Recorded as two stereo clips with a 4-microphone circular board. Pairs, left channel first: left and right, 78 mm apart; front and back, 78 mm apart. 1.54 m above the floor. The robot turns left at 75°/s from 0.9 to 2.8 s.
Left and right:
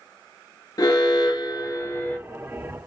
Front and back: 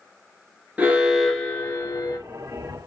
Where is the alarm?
115° left, 1.0 m; by 2.2 s 15° left, 1.0 m.